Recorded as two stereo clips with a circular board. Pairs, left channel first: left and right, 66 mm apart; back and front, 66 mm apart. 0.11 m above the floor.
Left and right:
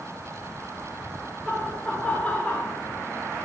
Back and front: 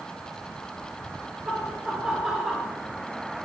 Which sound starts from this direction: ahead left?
Laughter, at 1.4 s.